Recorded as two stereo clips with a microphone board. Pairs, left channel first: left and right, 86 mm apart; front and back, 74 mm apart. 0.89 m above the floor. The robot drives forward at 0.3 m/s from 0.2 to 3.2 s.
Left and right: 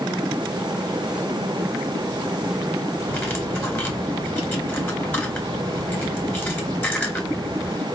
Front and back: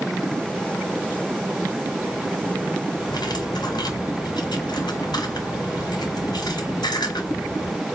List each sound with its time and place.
3.1 s cutlery clinking: 25° left, 2 m